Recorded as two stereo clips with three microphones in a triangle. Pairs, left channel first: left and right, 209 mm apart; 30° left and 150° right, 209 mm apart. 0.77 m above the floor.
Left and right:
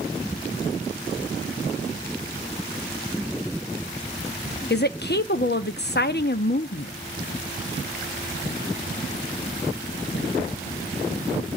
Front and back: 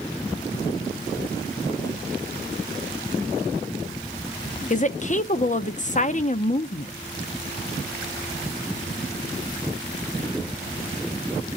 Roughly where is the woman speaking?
Left.